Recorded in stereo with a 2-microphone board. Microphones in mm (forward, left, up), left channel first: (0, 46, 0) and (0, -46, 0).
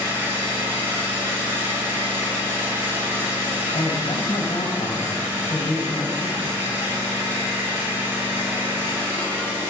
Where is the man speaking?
75° left (ahead or behind), 5 m.